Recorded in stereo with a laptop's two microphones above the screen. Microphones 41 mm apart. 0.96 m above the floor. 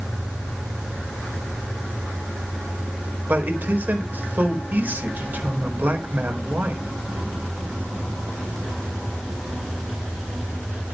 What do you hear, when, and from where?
3.3 s a man speaking: 50° right (ahead or behind), 4.5 m